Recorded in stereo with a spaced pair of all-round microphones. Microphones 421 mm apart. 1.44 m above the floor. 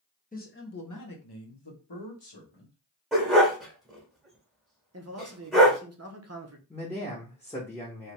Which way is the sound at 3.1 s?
Centre (ahead or behind).